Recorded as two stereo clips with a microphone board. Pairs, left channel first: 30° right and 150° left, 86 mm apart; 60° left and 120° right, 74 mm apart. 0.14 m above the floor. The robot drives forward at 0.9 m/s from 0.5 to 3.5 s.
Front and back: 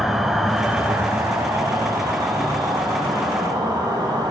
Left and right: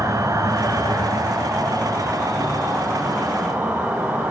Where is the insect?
125° right, 0.9 m; by 4.3 s 170° right, 3 m.